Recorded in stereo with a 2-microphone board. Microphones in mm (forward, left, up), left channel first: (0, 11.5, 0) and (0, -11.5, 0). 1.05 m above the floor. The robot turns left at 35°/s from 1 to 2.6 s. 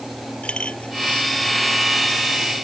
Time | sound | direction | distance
0.4 | a clink | 55° left (ahead or behind) | ?